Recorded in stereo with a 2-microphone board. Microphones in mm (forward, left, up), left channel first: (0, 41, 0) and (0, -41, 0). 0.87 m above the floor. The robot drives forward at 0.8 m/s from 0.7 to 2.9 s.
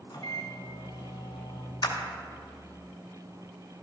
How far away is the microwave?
About 1.3 m.